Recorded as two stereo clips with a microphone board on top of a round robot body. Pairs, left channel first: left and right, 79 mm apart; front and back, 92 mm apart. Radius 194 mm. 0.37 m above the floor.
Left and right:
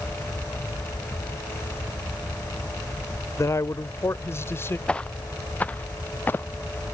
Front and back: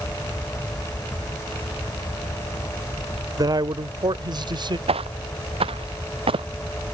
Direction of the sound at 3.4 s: 140° left.